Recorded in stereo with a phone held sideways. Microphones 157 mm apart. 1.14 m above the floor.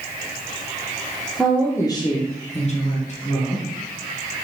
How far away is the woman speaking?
About 0.6 m.